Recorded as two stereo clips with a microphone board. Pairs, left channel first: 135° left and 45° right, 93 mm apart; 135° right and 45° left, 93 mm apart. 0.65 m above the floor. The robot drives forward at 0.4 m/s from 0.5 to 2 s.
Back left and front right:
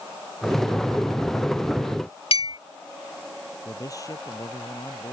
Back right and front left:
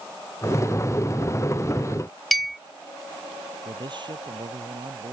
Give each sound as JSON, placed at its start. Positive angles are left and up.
{"t": 2.3, "sound": "a clink", "azimuth_deg": 135}
{"t": 3.6, "sound": "a man speaking", "azimuth_deg": 80}